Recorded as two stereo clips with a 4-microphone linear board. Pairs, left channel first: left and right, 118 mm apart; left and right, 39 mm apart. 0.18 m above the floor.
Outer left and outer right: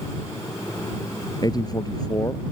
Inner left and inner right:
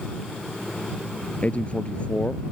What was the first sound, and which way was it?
A man speaking, 35° left (ahead or behind).